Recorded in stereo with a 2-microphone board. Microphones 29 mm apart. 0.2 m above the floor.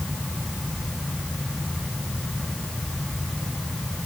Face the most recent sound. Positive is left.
No sound to turn to.